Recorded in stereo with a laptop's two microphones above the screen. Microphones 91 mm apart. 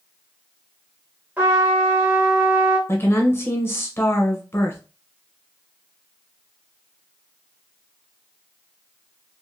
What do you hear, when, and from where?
1.4 s a trumpet: 20° right (ahead or behind), 1.2 m
2.9 s a woman speaking: 25° left (ahead or behind), 1.0 m